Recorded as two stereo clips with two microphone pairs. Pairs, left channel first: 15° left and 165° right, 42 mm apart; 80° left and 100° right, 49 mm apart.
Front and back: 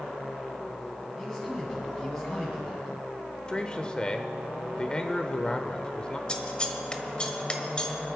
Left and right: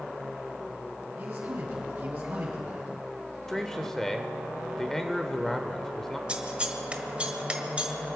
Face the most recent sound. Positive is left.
turn(degrees=-40)